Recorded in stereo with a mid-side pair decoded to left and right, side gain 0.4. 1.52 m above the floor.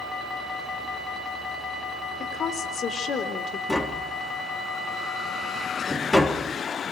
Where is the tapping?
20° left, 4 m.